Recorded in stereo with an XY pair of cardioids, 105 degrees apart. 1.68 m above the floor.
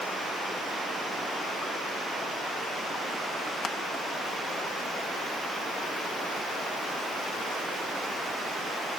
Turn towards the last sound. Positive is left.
turn(degrees=40)